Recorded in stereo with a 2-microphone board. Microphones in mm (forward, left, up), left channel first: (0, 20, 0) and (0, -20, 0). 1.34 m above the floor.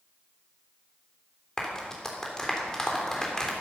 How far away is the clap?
About 3 m.